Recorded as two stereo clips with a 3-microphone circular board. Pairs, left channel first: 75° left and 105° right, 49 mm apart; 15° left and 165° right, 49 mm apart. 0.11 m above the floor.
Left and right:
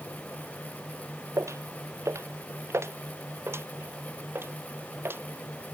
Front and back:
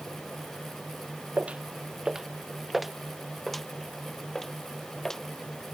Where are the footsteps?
105° right; by 5.8 s 65° right.